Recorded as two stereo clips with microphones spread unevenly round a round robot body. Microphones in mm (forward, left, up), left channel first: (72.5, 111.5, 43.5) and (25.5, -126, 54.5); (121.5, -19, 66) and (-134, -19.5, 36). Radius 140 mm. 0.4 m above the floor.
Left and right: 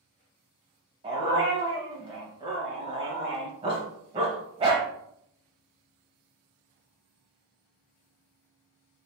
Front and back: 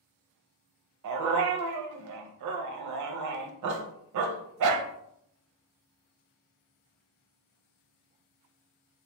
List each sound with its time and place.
1.0 s a dog barking: 170° right, 0.6 m